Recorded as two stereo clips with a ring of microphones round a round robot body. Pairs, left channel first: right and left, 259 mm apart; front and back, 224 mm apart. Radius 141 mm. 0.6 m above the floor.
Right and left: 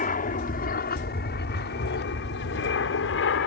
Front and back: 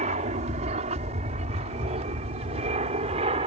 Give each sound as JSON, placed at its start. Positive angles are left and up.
{"t": 0.0, "sound": "an aircraft", "azimuth_deg": -135}